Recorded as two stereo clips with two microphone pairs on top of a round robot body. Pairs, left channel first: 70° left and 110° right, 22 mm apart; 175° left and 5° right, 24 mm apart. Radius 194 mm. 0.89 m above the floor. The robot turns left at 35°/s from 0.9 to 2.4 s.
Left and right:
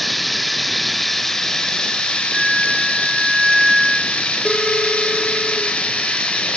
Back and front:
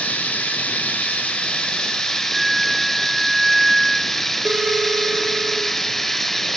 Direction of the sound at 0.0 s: 155° left.